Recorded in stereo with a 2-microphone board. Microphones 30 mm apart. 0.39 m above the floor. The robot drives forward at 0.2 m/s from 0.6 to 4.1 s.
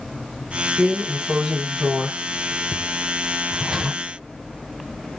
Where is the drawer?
15° right (ahead or behind), 1.3 m; by 4.0 s 25° right (ahead or behind), 0.7 m.